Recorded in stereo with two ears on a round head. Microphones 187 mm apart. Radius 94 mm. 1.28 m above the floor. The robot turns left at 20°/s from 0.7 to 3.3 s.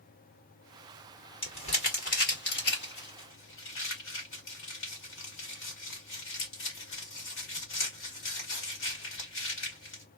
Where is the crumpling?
25° left (ahead or behind), 1.9 m; by 10.0 s 65° left (ahead or behind), 1.9 m.